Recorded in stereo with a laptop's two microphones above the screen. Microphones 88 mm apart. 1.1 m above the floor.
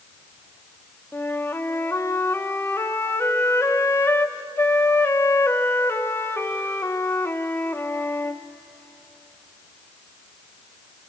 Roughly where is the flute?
Left.